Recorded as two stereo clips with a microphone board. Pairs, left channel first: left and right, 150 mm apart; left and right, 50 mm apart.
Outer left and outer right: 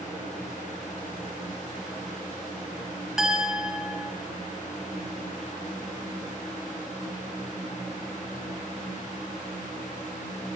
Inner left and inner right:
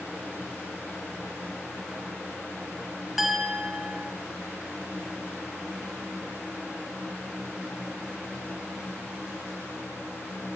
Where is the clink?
5° right (ahead or behind), 1.2 m.